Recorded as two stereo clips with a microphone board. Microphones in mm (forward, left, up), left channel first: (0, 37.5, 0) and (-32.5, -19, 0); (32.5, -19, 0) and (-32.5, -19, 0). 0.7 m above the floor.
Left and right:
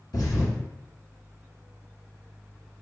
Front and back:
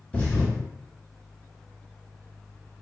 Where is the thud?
65° left, 1.3 m.